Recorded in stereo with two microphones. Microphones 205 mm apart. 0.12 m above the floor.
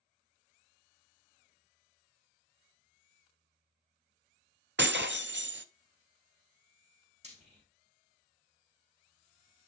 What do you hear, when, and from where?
4.8 s breaking glass: 60° right (ahead or behind), 0.6 m
7.2 s frying: 35° right (ahead or behind), 4 m